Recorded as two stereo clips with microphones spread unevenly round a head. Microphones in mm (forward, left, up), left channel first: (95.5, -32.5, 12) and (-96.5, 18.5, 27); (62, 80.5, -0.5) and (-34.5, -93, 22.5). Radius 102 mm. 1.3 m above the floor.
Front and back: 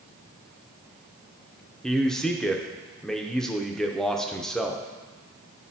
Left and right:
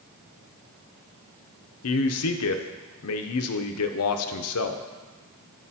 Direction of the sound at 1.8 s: 70° left.